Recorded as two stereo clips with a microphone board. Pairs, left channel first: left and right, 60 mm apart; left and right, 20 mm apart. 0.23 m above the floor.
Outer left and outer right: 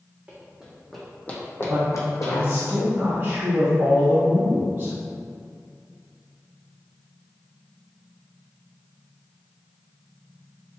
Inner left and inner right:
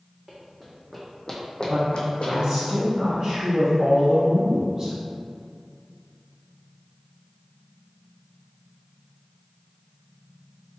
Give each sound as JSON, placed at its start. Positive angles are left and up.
{"t": 0.3, "sound": "running footsteps", "side_deg": -20, "distance_m": 0.9}
{"t": 1.7, "sound": "a man speaking", "side_deg": -40, "distance_m": 1.3}